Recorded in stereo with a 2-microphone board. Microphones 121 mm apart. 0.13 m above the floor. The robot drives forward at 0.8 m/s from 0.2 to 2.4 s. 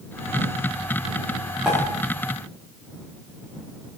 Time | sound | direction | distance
1.6 | a pop | 10° right (ahead or behind) | 6.5 m